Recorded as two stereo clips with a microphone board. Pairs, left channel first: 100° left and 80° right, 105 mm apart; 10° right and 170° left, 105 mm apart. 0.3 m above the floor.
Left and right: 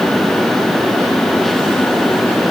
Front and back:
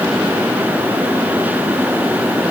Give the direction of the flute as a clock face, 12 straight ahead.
No flute in this recording.